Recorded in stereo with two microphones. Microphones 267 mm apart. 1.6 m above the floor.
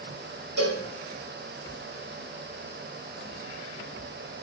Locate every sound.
0.6 s a cowbell: 70° right (ahead or behind), 6 m